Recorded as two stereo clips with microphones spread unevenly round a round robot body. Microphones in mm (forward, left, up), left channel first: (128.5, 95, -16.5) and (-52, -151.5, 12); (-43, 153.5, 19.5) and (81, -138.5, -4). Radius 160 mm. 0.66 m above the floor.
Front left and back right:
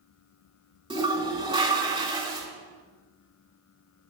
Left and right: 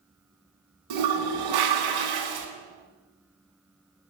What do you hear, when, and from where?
0.9 s a toilet flushing: 55° right, 2.0 m